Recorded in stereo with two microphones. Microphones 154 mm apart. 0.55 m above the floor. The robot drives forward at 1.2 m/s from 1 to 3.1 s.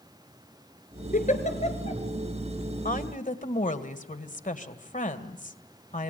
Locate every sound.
1.1 s a giggle: 60° left (ahead or behind), 2 m; by 2.0 s 40° left (ahead or behind), 3 m
2.9 s a woman speaking: 60° left (ahead or behind), 1.9 m; by 6.1 s 55° left (ahead or behind), 2 m